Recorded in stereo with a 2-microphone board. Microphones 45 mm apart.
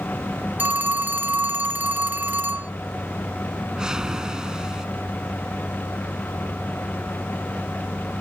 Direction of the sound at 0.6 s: 40° right (ahead or behind).